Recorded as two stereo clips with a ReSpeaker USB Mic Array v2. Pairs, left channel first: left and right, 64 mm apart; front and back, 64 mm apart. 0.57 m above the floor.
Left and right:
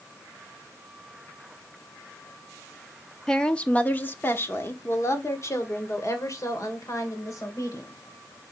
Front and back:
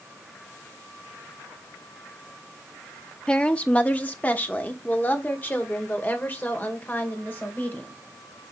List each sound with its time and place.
3.3 s a woman speaking: 25° left, 0.9 m; by 8.0 s 60° left, 3 m